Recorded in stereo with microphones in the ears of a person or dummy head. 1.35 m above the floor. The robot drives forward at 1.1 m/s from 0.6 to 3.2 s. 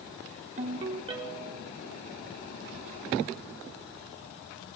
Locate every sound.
0.6 s a ringtone: 40° right (ahead or behind), 1.2 m; by 1.7 s 20° right (ahead or behind), 2 m